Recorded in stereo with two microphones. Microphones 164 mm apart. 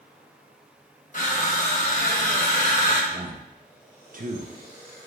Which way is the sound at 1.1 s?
50° left (ahead or behind).